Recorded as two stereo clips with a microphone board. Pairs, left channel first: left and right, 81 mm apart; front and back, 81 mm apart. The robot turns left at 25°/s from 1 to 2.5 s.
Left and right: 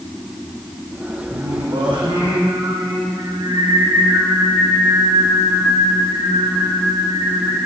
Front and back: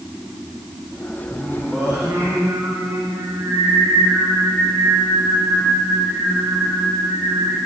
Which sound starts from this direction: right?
Singing, at 1.3 s.